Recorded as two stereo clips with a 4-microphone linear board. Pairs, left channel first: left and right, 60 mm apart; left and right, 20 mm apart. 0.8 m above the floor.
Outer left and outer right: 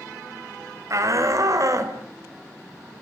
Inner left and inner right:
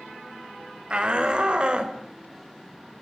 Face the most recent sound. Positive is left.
turn(degrees=-60)  # may be behind; listen again after turning